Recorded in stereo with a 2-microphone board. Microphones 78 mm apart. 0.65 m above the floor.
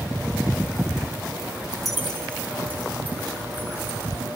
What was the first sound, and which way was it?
Keys jangling, 5° right (ahead or behind).